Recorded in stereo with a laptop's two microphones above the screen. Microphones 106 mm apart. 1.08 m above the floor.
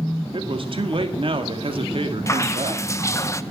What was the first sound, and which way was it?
A man speaking, 55° right (ahead or behind).